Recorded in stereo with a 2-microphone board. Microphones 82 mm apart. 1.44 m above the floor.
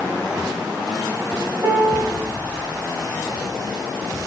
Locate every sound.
1.6 s a piano: 45° right (ahead or behind), 1.3 m